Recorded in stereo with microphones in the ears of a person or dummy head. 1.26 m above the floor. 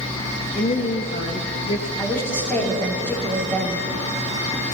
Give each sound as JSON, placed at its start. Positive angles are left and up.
{"t": 0.6, "sound": "a woman speaking", "side_deg": 40, "distance_m": 1.2}
{"t": 2.0, "sound": "a woman speaking", "side_deg": 10, "distance_m": 4.0}